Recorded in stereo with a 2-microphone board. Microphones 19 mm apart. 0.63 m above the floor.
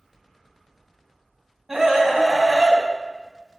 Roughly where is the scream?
Centre.